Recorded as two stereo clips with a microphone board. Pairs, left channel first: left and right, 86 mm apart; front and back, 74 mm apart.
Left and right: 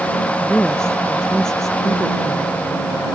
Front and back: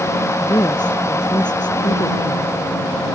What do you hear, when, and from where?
0.4 s a woman speaking: 10° left; by 2.5 s straight ahead